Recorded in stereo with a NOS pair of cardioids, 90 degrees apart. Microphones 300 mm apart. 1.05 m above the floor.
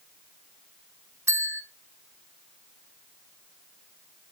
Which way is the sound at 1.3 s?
10° right.